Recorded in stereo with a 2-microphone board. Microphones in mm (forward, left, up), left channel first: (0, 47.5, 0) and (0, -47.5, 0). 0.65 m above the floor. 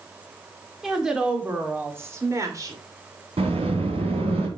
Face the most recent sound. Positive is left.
turn(degrees=-80)